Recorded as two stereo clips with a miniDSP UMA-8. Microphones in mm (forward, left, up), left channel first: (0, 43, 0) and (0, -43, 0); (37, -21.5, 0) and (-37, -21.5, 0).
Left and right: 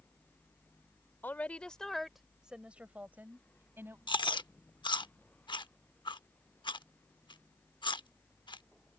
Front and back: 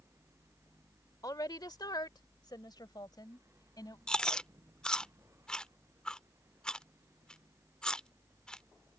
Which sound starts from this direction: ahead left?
A woman speaking, at 1.2 s.